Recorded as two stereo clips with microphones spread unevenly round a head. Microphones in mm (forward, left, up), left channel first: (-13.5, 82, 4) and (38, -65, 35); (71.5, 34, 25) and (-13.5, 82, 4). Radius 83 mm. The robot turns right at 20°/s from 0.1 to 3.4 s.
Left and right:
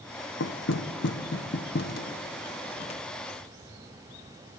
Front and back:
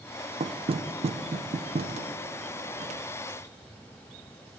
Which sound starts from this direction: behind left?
Knocking, at 0.4 s.